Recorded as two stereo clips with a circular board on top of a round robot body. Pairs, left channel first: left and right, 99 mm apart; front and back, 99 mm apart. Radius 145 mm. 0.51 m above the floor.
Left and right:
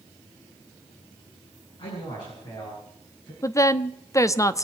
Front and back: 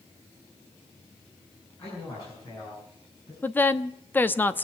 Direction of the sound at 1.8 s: 50° left.